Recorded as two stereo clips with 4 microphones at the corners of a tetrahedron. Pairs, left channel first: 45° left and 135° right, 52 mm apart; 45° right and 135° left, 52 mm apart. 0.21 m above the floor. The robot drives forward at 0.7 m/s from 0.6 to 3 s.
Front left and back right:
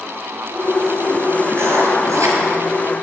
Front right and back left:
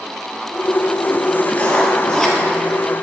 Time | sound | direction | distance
1.5 | writing | 105° right | 1.2 m